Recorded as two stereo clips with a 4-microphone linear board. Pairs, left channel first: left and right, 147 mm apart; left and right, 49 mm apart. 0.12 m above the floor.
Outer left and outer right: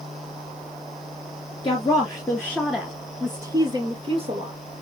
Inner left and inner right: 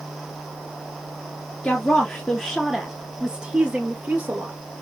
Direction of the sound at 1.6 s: 30° left (ahead or behind).